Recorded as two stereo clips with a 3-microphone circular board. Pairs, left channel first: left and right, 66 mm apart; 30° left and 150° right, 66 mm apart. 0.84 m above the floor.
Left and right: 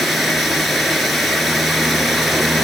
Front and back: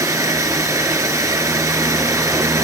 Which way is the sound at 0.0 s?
Straight behind.